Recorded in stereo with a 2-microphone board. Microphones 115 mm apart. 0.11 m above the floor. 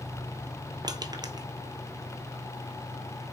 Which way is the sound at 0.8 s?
35° right (ahead or behind).